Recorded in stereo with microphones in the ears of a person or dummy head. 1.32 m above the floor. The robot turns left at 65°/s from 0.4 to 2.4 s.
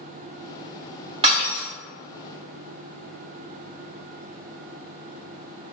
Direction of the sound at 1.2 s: 30° right (ahead or behind).